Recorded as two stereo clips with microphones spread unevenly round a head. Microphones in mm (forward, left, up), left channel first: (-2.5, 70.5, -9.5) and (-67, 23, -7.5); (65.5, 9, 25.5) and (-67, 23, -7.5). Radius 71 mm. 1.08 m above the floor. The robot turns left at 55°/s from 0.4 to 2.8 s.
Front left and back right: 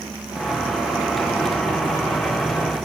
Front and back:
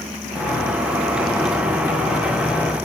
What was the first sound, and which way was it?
Only background noise.